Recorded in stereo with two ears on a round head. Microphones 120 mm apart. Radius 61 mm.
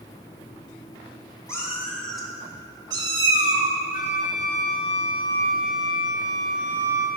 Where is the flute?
70° left (ahead or behind), 1.6 m.